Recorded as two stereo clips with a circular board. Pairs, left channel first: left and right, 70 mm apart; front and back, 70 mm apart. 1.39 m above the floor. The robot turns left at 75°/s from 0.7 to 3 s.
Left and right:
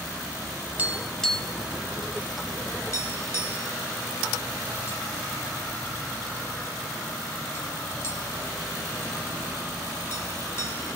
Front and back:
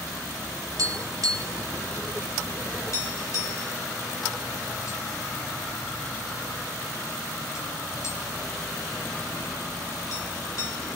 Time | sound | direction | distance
0.8 | tapping | 160° right | 3 m